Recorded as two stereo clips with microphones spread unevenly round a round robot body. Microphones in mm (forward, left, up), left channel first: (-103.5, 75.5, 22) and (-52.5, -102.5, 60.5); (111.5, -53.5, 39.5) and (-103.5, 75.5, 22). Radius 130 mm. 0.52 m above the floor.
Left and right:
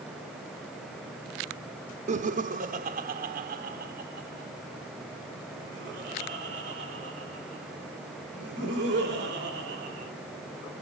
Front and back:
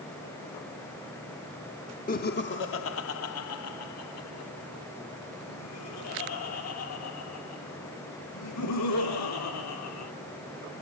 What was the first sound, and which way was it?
Laughter, 50° right.